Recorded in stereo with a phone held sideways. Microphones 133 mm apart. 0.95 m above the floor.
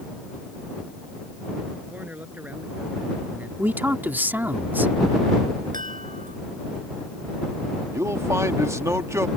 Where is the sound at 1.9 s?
10° right (ahead or behind).